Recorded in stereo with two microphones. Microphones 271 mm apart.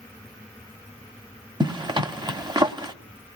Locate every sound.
1.6 s a zipper: 15° right (ahead or behind), 1.0 m